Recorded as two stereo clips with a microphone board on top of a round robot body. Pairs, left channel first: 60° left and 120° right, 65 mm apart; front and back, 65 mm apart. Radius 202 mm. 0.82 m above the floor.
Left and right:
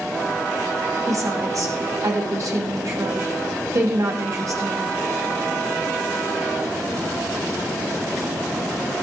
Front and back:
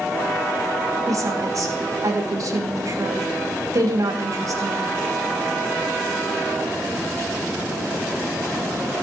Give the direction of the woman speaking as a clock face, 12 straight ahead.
5 o'clock.